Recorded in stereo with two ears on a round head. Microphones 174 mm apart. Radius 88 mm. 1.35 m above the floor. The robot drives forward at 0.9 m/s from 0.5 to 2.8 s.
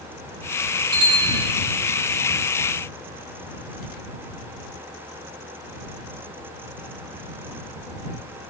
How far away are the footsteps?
No footsteps in this recording.